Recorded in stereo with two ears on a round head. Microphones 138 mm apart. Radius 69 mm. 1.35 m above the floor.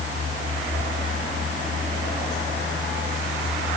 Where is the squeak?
I don't hear a squeak.